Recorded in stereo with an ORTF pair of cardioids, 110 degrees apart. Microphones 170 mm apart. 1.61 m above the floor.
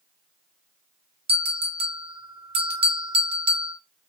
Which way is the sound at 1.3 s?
35° right.